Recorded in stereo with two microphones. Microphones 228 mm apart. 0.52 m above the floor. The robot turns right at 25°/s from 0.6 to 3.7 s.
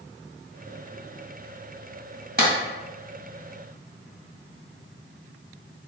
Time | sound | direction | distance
2.4 | a clap | 45° right (ahead or behind) | 2.0 m